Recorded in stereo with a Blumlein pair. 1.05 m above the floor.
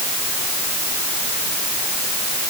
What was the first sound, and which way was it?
Only background noise.